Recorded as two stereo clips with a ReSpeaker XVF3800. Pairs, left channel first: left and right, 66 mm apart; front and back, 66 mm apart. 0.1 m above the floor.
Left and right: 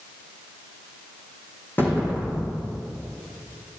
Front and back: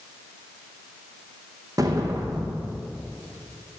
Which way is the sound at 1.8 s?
150° left.